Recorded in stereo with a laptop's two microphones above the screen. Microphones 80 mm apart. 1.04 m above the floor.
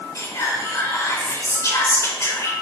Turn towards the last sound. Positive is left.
turn(degrees=40)  # may be behind; listen again after turning